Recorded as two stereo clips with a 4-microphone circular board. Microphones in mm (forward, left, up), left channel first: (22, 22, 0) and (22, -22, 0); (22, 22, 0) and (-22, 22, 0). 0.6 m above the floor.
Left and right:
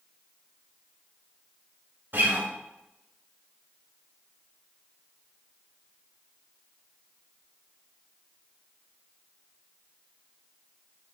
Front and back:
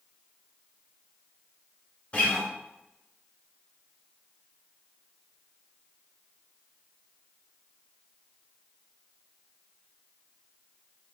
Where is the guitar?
60° right, 1.1 m.